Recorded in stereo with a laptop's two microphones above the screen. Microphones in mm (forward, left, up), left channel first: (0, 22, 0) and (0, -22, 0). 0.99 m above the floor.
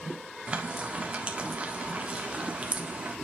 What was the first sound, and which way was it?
Frying, 30° right (ahead or behind).